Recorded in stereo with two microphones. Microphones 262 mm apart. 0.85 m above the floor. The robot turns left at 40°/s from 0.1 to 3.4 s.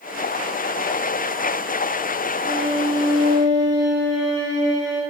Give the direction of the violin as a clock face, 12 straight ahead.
2 o'clock.